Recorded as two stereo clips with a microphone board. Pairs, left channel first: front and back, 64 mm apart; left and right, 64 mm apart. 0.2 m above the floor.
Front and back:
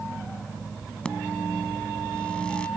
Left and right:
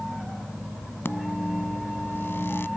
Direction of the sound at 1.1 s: 65° left.